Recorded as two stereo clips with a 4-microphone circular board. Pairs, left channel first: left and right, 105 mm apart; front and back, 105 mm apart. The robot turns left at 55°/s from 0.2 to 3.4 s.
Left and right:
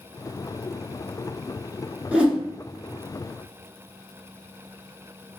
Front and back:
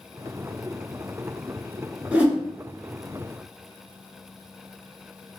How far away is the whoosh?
About 0.9 m.